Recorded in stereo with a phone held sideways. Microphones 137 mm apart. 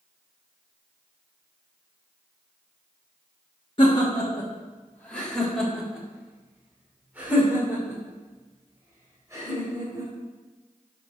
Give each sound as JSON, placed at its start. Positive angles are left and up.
{"t": 3.8, "sound": "laughter", "side_deg": 35, "distance_m": 1.2}